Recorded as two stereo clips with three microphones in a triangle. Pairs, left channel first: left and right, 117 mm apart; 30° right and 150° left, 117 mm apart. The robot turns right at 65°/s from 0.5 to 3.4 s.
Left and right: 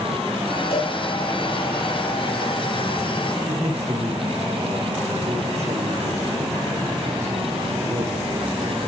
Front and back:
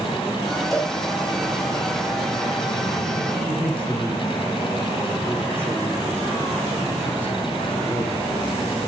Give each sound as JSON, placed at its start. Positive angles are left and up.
{"t": 0.7, "sound": "a cowbell", "azimuth_deg": 60, "distance_m": 5.0}
{"t": 3.5, "sound": "a man speaking", "azimuth_deg": -110, "distance_m": 8.0}